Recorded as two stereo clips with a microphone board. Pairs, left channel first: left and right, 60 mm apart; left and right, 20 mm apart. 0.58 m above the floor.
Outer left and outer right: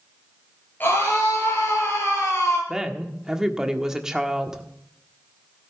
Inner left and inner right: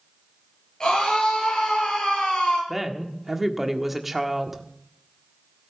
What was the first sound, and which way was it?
A scream, 35° left (ahead or behind).